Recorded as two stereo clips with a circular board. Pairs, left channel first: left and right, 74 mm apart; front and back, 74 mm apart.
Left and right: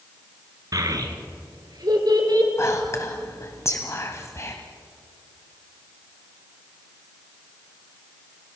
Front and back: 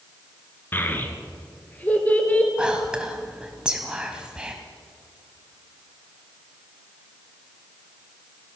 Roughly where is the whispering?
Left.